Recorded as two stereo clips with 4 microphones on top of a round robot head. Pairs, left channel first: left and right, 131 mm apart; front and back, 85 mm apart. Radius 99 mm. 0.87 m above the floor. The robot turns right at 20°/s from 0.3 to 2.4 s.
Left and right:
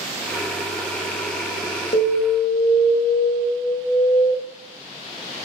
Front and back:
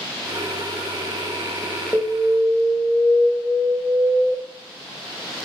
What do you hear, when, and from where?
1.9 s an alarm: 75° left, 1.9 m; by 4.3 s 85° left, 1.9 m